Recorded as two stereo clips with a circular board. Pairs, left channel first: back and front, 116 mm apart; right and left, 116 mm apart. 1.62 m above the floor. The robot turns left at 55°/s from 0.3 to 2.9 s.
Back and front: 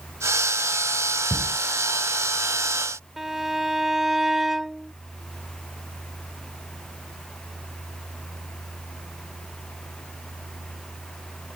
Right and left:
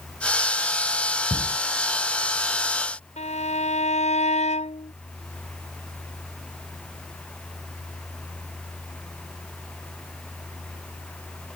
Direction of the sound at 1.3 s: 95° right.